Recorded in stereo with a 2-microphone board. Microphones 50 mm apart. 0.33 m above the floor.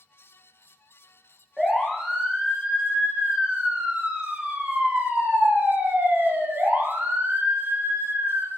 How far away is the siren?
About 6 m.